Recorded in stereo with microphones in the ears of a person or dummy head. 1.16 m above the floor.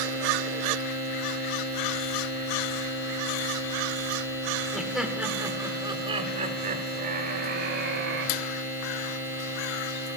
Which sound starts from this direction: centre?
Laughter, at 4.7 s.